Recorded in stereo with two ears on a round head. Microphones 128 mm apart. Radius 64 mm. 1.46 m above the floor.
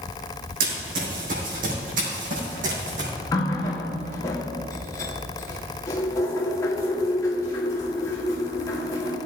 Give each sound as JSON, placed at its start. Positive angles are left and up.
{"t": 0.6, "sound": "running footsteps", "side_deg": -70, "distance_m": 4.0}
{"t": 3.3, "sound": "a running tap", "side_deg": 20, "distance_m": 1.7}